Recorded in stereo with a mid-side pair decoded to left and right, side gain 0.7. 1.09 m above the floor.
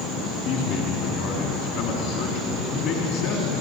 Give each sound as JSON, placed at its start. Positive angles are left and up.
{"t": 0.4, "sound": "a man speaking", "azimuth_deg": 60, "distance_m": 2.5}